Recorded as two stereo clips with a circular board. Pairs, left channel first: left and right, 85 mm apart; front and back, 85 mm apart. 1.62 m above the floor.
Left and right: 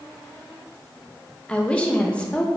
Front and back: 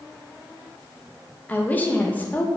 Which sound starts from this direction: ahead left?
A woman speaking, at 1.5 s.